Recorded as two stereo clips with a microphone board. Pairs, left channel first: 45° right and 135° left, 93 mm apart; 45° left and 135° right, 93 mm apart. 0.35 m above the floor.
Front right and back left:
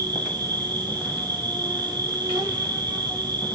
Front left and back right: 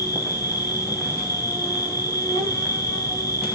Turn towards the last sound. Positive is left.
turn(degrees=95)